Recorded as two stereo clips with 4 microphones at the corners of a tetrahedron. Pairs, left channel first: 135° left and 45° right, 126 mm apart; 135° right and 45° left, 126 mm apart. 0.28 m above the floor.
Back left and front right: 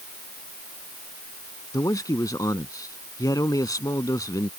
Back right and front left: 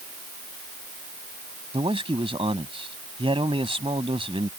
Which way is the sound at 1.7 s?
80° left.